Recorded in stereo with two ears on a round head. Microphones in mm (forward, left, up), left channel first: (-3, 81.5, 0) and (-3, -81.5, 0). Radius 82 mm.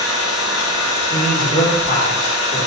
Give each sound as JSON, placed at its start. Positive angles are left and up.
{"t": 0.0, "sound": "an engine running", "side_deg": 85, "distance_m": 1.0}
{"t": 1.1, "sound": "a man speaking", "side_deg": 55, "distance_m": 1.8}